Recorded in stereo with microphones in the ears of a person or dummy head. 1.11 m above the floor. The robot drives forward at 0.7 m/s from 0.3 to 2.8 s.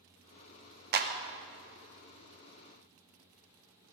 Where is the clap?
50° right (ahead or behind), 0.7 m; by 1.1 s 45° right (ahead or behind), 0.8 m.